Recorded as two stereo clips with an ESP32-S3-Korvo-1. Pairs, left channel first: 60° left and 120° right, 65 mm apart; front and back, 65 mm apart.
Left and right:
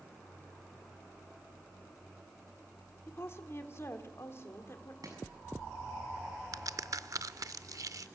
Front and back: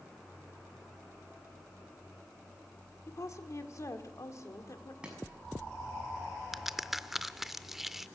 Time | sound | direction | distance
3.1 | a woman speaking | 20° left | 1.8 m
5.0 | chopping | 105° right | 6 m
6.5 | a crack | 95° right | 0.5 m